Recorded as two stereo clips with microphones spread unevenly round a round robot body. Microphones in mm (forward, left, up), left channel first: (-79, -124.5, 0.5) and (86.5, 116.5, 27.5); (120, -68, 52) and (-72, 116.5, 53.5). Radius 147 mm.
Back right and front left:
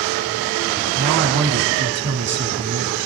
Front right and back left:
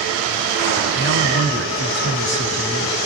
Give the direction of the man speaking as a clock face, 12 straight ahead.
12 o'clock.